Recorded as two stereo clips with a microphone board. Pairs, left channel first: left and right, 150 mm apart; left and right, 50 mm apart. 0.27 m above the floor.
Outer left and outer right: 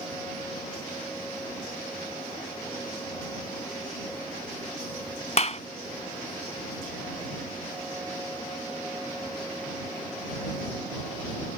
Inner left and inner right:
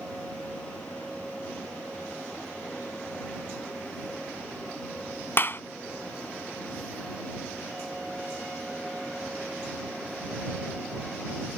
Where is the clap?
50° left (ahead or behind).